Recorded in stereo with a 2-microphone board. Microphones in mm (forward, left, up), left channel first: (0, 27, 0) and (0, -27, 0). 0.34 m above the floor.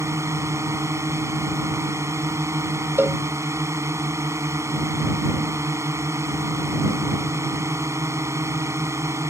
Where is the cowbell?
45° right (ahead or behind).